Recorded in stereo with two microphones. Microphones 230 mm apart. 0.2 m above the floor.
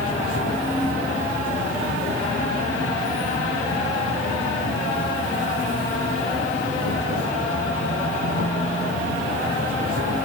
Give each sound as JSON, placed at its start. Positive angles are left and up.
{"t": 0.0, "sound": "an insect", "side_deg": 80, "distance_m": 3.5}